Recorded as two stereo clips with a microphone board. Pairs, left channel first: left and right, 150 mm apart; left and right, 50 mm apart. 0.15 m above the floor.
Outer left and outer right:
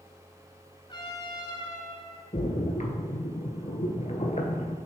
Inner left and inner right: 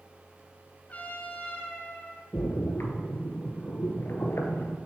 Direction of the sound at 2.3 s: 55° left (ahead or behind).